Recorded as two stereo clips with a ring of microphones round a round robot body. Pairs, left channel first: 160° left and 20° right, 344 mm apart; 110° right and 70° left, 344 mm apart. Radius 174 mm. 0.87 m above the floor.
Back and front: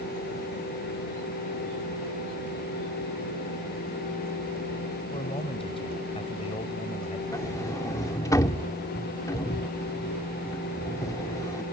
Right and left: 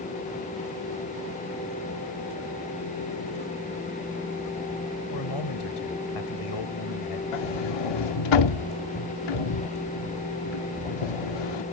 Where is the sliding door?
120° right.